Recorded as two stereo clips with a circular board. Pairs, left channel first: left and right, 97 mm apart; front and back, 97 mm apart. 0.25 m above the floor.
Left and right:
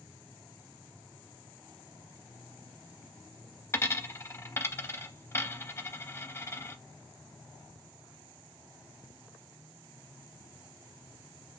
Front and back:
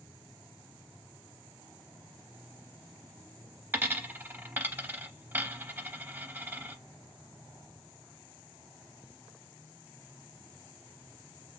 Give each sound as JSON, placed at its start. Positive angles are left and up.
{"t": 3.7, "sound": "a dropped coin", "azimuth_deg": 125, "distance_m": 0.6}